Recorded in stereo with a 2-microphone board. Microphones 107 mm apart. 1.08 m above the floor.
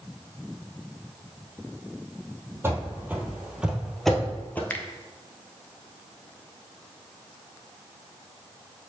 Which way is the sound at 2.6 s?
25° right (ahead or behind).